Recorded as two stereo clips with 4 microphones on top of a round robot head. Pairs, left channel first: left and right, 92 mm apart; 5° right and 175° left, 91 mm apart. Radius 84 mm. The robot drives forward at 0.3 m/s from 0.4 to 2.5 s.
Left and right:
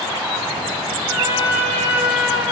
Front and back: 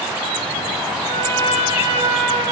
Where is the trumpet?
155° right, 8 m.